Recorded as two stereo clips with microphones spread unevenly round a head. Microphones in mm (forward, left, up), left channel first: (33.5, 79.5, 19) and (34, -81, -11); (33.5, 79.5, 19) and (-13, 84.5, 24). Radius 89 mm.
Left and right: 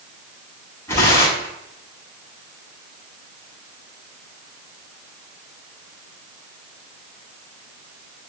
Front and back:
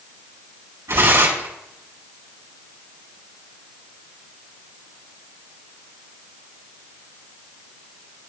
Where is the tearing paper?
165° left, 6.5 m.